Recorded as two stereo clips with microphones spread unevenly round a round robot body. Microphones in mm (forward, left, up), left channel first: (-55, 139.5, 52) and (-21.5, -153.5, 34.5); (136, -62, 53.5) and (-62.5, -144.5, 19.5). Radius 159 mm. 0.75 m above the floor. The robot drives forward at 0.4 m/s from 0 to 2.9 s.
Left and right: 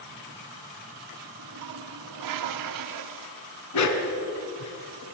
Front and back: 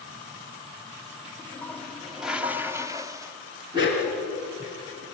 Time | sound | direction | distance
1.4 | a toilet flushing | 60° right | 1.5 m
3.7 | a dog barking | 125° left | 2.5 m